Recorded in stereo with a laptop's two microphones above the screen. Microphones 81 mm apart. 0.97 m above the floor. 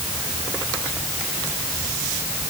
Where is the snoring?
I don't hear snoring.